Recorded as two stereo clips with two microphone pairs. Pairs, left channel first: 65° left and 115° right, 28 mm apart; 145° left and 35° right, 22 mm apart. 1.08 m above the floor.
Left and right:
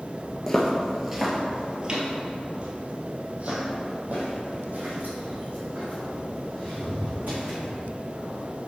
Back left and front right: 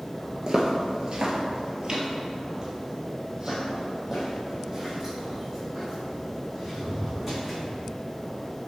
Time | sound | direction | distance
0.5 | footsteps | 5° right | 1.2 m